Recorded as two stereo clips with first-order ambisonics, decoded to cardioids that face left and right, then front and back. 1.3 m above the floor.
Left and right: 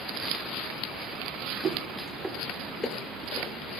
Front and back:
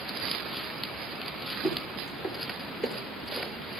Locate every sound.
1.6 s footsteps: 50° right, 1.5 m; by 3.6 s 80° left, 1.8 m